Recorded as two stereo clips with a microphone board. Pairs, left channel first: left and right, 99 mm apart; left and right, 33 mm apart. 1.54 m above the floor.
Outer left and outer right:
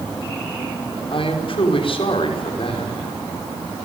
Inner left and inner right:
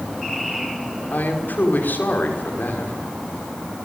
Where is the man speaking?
65° left (ahead or behind), 5.5 m.